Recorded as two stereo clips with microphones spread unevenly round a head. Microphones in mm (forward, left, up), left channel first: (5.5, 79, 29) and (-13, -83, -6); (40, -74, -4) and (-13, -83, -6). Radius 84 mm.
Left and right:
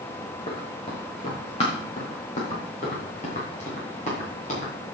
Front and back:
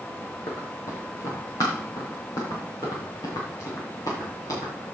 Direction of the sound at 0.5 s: 30° left.